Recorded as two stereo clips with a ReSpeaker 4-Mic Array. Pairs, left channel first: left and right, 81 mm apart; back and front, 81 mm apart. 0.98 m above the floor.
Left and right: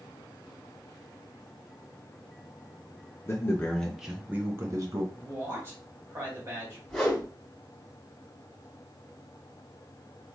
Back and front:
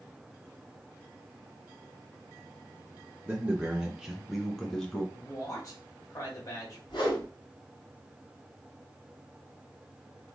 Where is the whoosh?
175° left, 2.0 m.